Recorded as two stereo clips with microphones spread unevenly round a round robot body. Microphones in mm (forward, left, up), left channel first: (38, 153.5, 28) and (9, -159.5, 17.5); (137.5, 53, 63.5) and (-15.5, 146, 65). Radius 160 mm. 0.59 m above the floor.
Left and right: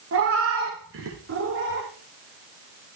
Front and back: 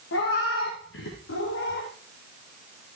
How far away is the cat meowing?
About 4.5 m.